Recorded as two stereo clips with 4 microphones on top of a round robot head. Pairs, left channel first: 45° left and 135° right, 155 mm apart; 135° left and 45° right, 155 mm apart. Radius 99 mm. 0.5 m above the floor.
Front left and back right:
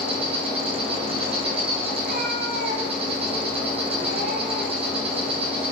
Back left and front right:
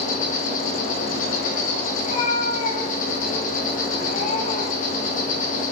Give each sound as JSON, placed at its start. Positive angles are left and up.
{"t": 0.0, "sound": "an insect", "azimuth_deg": 170, "distance_m": 1.9}
{"t": 2.0, "sound": "a cat meowing", "azimuth_deg": -175, "distance_m": 1.7}